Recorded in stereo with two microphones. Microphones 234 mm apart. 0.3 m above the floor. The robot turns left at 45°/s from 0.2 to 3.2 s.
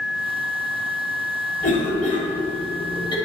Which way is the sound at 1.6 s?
35° left (ahead or behind).